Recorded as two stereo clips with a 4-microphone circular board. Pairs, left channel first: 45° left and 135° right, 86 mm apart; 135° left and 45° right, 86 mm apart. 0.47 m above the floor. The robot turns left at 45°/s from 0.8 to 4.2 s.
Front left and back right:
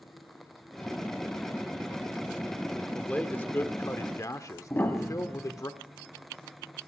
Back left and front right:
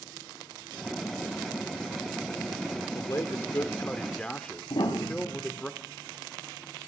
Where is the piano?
110° left, 1.8 m.